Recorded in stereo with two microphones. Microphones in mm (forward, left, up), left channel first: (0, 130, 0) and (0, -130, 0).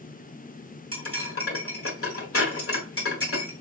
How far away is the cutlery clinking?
About 1.4 m.